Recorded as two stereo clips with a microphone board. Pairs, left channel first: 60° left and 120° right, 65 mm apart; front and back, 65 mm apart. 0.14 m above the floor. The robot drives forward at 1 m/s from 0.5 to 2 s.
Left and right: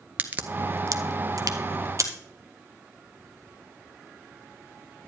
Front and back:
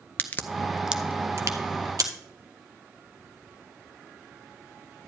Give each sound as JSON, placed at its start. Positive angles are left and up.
{"t": 0.2, "sound": "a crack", "azimuth_deg": -60, "distance_m": 0.6}